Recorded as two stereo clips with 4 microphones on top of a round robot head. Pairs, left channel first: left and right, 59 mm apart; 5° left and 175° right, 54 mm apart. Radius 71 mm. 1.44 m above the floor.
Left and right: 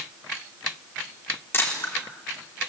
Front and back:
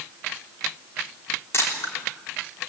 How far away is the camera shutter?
About 3.5 m.